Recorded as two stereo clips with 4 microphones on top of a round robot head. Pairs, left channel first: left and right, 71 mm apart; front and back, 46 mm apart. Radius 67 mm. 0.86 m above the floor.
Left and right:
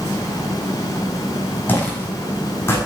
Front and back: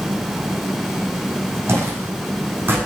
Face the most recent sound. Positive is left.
turn(degrees=145)